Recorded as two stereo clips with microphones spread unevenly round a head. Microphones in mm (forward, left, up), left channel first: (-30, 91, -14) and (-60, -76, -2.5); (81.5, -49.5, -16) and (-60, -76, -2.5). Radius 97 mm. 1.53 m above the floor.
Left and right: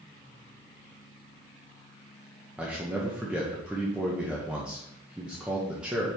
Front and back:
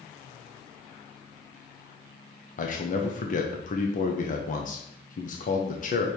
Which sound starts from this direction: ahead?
A man speaking, at 2.6 s.